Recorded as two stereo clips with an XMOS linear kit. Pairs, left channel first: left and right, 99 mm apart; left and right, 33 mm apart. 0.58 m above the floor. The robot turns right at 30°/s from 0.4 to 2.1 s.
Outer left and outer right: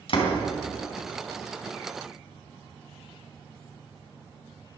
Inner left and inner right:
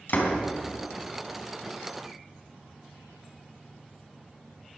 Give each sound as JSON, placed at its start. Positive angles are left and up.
{"t": 0.1, "sound": "a door slam", "side_deg": 60, "distance_m": 3.5}